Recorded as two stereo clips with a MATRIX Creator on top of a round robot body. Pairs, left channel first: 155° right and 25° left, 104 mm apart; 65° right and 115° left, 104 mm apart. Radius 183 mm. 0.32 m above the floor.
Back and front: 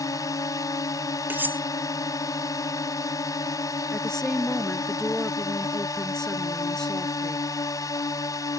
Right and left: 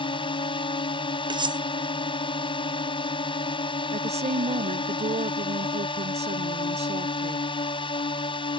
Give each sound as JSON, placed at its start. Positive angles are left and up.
{"t": 0.0, "sound": "a drone", "azimuth_deg": -100}
{"t": 1.3, "sound": "cutlery clinking", "azimuth_deg": 90}
{"t": 3.9, "sound": "a woman speaking", "azimuth_deg": 120}